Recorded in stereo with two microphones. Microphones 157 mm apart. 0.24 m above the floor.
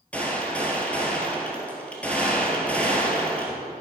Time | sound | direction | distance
0.1 | a gunshot | 10° left (ahead or behind) | 1.8 m